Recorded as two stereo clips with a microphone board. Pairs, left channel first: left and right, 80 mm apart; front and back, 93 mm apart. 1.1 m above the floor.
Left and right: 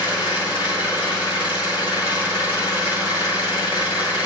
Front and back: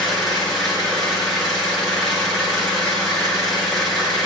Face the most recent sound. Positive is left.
turn(degrees=90)